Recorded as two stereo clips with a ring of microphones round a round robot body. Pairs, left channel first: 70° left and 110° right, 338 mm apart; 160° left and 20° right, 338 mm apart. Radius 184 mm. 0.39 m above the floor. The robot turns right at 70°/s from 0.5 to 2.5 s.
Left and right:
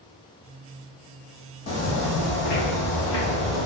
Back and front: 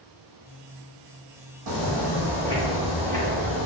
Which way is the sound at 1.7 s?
5° left.